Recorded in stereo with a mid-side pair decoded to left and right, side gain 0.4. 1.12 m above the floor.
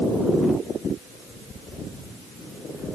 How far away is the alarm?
I don't hear an alarm.